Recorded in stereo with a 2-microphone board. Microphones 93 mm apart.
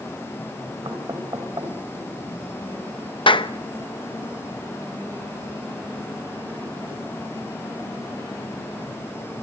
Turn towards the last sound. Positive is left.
turn(degrees=70)  # may be behind; listen again after turning